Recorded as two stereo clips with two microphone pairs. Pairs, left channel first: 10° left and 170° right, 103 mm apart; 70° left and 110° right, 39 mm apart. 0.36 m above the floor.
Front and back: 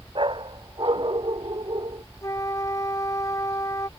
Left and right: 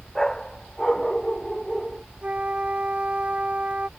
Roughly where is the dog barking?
Behind left.